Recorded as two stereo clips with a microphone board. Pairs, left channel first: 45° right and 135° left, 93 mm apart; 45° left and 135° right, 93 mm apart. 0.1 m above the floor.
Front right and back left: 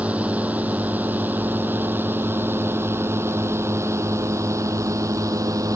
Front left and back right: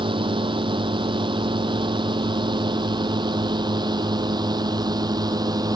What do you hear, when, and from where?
0.0 s a drone: 150° right; by 5.8 s 175° right